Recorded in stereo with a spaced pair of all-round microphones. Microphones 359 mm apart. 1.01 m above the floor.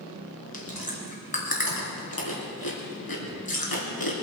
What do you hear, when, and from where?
0.5 s chewing: 80° left, 3 m